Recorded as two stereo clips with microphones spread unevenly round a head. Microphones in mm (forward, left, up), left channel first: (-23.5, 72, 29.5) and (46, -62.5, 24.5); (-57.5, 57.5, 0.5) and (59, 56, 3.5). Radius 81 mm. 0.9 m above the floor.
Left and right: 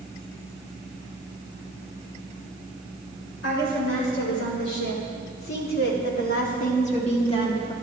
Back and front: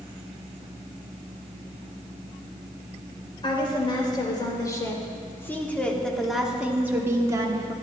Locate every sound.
3.4 s a woman speaking: 130° left, 3 m; by 7.7 s 50° left, 1.7 m